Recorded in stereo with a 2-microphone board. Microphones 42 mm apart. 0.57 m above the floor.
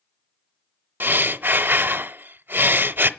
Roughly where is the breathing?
Right.